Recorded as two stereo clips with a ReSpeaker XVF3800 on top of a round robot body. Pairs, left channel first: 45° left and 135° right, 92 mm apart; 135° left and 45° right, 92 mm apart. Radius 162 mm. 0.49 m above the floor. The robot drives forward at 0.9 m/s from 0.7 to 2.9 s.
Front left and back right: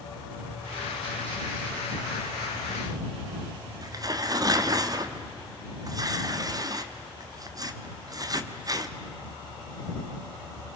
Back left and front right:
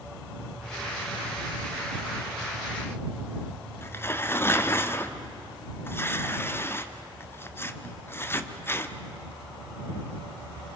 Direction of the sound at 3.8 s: 170° right.